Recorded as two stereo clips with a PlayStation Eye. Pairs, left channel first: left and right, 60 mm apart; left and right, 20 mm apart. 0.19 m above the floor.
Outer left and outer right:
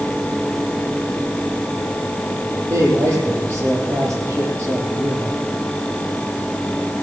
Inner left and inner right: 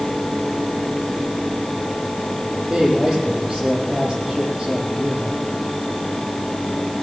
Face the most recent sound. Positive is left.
turn(degrees=-50)  # may be behind; listen again after turning